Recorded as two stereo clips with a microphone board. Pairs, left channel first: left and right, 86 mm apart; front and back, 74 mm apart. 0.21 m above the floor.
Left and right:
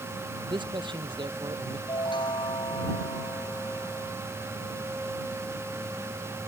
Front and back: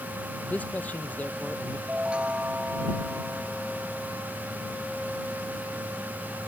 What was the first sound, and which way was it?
A man speaking, 70° right.